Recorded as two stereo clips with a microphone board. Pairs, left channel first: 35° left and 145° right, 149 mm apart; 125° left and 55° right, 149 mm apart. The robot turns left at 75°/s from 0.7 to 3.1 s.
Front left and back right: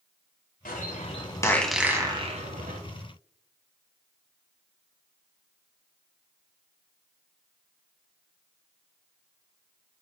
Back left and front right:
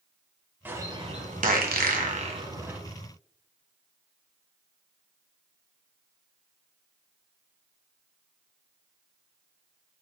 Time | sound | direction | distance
0.7 | a bird | 20° left | 1.4 m